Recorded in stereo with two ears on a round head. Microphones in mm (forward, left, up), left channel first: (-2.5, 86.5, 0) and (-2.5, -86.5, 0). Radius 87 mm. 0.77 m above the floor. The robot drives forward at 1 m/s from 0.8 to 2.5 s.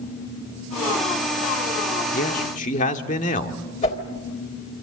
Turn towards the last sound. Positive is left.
turn(degrees=35)  # may be behind; listen again after turning